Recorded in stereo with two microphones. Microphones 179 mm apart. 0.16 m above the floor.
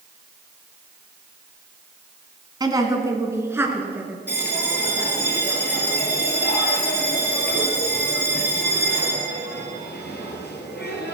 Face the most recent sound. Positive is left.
turn(degrees=70)  # may be behind; listen again after turning